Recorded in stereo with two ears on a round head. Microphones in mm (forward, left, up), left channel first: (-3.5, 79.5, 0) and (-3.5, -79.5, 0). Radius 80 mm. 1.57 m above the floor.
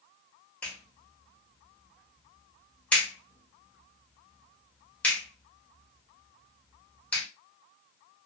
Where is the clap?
10° left (ahead or behind), 1.2 m.